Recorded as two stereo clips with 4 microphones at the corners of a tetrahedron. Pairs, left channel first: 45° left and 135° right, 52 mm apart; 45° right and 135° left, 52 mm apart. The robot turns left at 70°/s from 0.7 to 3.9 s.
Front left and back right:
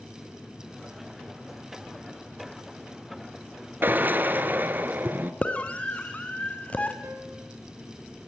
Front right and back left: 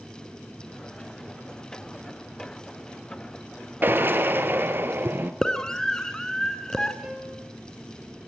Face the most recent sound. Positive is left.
turn(degrees=-155)